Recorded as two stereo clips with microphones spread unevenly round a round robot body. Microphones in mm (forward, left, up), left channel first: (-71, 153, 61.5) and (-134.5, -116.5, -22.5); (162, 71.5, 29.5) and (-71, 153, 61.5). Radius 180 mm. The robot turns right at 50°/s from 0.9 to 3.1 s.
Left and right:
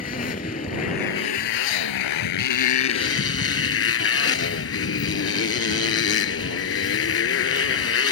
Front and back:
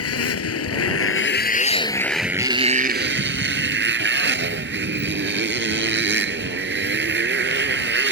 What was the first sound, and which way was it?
A motorcycle, 5° left.